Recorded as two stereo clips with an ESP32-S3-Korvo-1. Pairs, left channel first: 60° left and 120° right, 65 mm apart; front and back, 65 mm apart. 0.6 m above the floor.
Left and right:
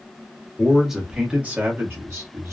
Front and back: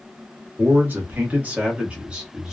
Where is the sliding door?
No sliding door in this recording.